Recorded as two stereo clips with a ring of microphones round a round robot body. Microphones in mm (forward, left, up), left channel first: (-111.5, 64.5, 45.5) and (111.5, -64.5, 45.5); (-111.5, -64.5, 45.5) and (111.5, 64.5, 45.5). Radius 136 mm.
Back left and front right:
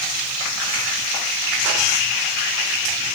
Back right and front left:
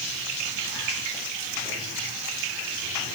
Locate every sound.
Only background noise.